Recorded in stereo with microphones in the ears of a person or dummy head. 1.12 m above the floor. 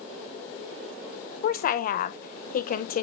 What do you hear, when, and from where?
1.4 s a woman speaking: 40° left (ahead or behind), 0.8 m